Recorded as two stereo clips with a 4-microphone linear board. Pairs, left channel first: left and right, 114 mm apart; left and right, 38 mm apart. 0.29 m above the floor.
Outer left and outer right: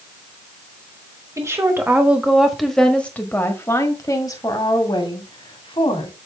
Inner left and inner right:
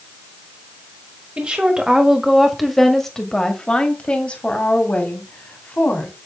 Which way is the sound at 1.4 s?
25° right (ahead or behind).